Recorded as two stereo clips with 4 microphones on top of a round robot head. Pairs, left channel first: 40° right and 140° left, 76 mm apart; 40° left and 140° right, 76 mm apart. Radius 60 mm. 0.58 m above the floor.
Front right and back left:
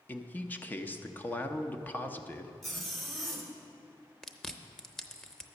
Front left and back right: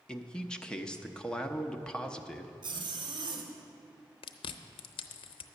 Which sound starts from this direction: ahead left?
Chewing, at 4.2 s.